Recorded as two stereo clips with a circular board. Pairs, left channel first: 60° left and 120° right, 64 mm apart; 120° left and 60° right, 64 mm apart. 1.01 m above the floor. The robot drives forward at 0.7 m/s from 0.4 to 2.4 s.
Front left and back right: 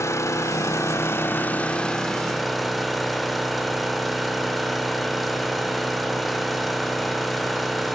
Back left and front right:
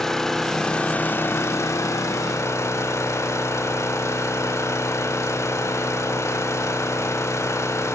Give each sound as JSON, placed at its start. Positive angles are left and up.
{"t": 0.0, "sound": "an engine running", "azimuth_deg": 40, "distance_m": 0.9}